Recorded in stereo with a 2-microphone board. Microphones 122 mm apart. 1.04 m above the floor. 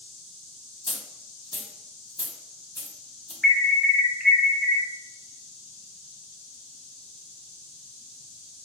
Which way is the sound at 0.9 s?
45° left (ahead or behind).